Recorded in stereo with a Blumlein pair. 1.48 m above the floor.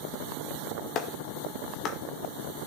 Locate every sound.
0.9 s a clap: 35° left, 1.8 m